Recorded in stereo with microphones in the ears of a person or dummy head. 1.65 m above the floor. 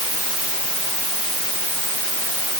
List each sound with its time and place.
Only background noise.